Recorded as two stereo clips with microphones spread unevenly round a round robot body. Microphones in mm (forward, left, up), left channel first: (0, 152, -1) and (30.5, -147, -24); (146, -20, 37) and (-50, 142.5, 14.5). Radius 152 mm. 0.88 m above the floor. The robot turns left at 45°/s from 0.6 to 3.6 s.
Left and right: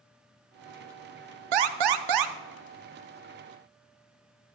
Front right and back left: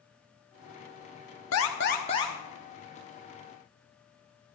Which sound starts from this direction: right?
An alarm, at 1.5 s.